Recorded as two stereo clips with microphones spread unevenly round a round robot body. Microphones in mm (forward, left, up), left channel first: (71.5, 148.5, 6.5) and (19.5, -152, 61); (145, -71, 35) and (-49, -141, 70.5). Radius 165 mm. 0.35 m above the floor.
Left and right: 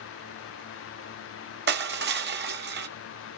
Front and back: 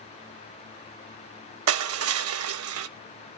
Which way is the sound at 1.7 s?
160° right.